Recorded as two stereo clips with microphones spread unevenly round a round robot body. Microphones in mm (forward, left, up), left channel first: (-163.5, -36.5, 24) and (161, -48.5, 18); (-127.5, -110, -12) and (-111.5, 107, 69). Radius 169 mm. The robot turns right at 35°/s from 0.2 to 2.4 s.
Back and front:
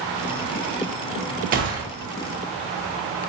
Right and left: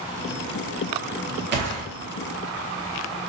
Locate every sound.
1.5 s a gunshot: 40° left, 1.0 m; by 1.8 s 50° left, 1.0 m